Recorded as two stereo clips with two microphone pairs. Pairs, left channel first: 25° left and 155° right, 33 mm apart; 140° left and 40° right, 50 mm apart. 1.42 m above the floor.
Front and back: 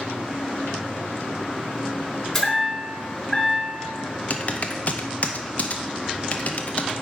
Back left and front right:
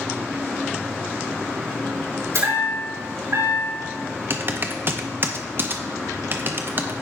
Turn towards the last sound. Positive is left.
turn(degrees=-10)